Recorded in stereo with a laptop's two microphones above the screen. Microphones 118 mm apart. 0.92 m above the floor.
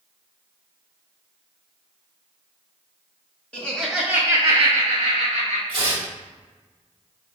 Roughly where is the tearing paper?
Right.